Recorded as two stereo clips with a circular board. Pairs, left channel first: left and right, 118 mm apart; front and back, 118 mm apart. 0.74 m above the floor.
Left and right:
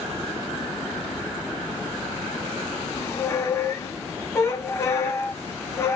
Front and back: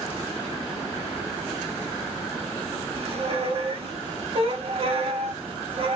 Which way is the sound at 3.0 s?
155° left.